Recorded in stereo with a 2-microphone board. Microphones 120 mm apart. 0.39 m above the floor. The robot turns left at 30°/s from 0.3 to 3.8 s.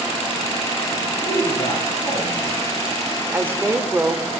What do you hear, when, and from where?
1.3 s a man speaking: 110° left, 6 m; by 2.7 s 70° left, 6 m
3.3 s a woman speaking: 15° right (ahead or behind), 0.8 m